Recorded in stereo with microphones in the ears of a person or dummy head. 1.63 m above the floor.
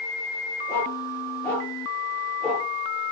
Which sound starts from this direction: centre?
A dog barking, at 0.7 s.